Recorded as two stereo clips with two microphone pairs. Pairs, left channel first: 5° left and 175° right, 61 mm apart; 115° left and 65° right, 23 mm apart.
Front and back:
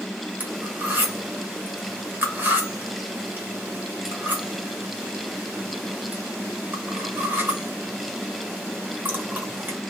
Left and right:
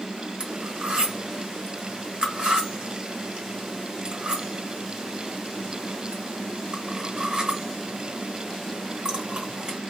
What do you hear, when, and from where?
0.4 s cutlery clinking: 115° right, 1.1 m